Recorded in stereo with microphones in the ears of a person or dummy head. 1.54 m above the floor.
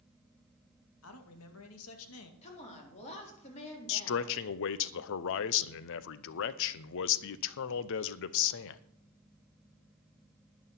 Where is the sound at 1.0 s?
85° left, 2 m.